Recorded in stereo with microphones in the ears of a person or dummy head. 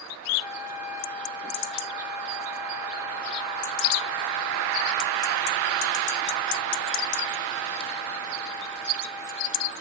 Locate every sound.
0.4 s a trumpet: 10° right (ahead or behind), 3 m